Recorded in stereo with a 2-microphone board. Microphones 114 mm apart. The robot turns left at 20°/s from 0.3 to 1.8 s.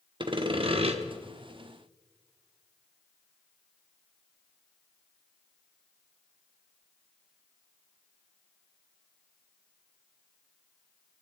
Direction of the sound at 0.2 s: 45° right (ahead or behind).